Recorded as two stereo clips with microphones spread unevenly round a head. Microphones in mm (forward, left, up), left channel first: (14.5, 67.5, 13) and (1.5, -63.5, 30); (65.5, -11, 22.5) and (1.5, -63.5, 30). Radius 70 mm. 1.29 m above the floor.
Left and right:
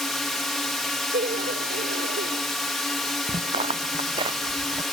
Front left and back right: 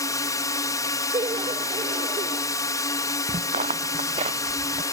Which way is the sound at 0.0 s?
Straight ahead.